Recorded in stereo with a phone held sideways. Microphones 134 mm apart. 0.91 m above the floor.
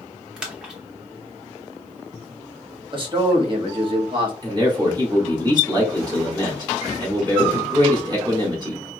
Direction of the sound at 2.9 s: 40° right (ahead or behind).